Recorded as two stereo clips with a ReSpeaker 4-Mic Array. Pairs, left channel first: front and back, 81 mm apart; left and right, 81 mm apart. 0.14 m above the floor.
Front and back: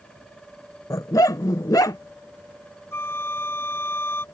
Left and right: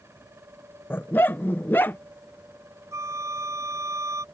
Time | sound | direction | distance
0.9 | a dog barking | 30° left | ?
2.9 | a flute | 50° right | ?